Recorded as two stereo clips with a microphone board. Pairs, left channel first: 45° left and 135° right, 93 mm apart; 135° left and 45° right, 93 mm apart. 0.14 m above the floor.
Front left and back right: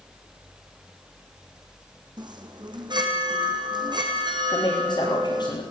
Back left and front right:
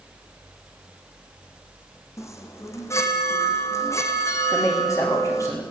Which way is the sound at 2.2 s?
170° right.